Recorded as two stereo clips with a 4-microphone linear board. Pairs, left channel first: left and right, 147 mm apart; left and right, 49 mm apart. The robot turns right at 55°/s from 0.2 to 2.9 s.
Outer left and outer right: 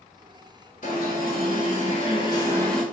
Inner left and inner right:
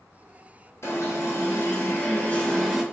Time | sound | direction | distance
0.8 | an alarm | 70° left | 1.5 m